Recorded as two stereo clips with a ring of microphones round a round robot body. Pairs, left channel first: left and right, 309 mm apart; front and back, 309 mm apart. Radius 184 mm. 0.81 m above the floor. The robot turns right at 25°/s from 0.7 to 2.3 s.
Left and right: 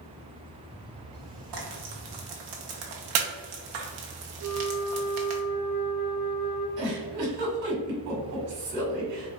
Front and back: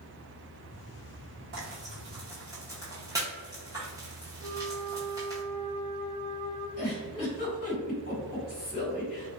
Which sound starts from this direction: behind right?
Frying, at 1.5 s.